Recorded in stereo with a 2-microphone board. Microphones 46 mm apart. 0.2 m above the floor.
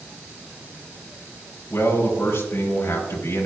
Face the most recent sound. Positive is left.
turn(degrees=70)  # may be behind; listen again after turning